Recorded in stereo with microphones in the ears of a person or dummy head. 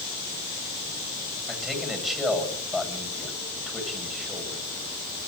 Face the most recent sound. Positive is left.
turn(degrees=0)  # may be behind; listen again after turning